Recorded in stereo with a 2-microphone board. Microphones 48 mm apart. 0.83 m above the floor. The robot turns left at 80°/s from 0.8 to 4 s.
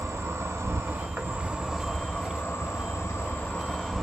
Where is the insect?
105° right, 0.7 m; by 4.0 s straight ahead, 0.7 m.